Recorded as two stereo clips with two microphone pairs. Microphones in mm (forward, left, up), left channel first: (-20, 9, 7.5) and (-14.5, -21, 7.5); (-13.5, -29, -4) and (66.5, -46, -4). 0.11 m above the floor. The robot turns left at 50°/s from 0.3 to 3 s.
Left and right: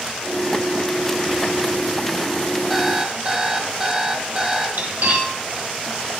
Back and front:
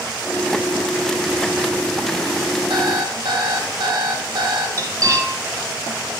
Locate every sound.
2.7 s an alarm clock: straight ahead, 2 m; by 4.7 s 15° right, 2 m
4.8 s cutlery clinking: 55° right, 2.5 m